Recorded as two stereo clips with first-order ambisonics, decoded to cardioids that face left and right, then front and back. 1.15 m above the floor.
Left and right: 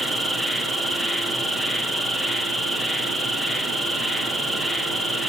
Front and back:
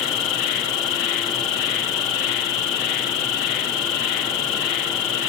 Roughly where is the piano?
I don't hear a piano.